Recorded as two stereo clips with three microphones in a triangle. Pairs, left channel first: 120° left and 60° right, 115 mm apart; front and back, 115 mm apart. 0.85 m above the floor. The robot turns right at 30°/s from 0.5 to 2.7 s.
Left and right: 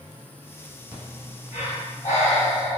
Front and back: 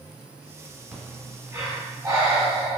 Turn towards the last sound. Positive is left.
turn(degrees=145)